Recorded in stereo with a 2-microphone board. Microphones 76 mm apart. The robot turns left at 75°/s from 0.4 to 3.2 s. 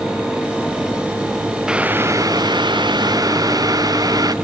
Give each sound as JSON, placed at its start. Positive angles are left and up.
{"t": 1.7, "sound": "boiling", "azimuth_deg": -10}